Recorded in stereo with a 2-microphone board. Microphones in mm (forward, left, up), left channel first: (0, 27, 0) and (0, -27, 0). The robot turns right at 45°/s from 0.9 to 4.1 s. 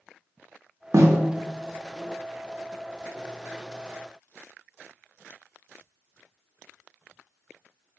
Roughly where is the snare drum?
Right.